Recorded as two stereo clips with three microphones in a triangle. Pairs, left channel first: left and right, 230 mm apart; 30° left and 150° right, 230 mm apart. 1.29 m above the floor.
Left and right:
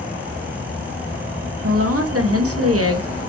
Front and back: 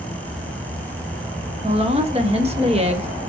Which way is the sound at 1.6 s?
85° right.